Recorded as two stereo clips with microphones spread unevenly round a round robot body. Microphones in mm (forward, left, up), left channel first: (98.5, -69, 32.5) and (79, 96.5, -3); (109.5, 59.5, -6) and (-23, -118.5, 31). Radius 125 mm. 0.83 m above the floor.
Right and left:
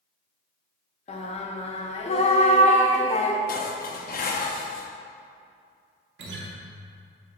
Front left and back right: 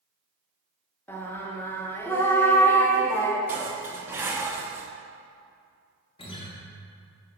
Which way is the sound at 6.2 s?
125° left.